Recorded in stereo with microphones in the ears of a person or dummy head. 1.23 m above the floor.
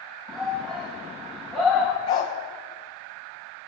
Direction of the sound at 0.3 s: 5° right (ahead or behind).